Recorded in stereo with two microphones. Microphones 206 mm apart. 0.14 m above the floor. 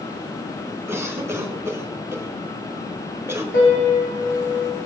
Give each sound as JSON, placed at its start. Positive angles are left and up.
{"t": 0.9, "sound": "a cough", "side_deg": -15, "distance_m": 1.9}
{"t": 3.5, "sound": "a piano", "side_deg": 75, "distance_m": 7.0}